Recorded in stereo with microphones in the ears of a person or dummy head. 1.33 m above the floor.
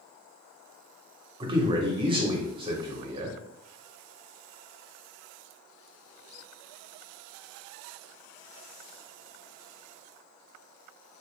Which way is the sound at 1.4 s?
30° right (ahead or behind).